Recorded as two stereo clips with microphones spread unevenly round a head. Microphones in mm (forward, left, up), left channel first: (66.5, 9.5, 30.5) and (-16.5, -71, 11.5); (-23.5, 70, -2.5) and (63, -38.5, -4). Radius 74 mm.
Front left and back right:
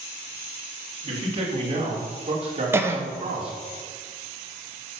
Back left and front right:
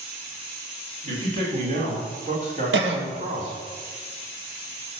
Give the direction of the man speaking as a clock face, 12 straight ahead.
3 o'clock.